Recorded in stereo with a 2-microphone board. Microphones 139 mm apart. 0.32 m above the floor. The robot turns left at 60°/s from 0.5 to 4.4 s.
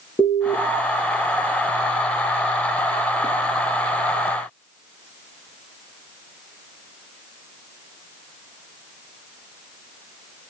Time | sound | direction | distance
0.2 | an alarm | 30° left (ahead or behind) | 5 m